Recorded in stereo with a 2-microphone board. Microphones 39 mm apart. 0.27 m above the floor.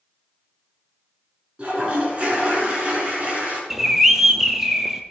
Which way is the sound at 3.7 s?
10° right (ahead or behind).